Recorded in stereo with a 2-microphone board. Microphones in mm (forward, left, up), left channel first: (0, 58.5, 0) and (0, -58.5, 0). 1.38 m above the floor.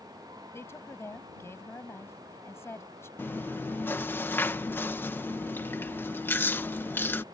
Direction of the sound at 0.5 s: 20° left (ahead or behind).